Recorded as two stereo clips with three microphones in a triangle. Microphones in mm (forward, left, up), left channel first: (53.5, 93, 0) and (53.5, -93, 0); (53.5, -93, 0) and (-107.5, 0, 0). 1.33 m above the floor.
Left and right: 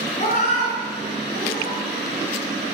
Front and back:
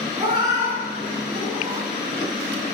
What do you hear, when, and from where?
0.2 s a cat meowing: 110° left, 1.7 m; by 1.9 s 40° left, 3 m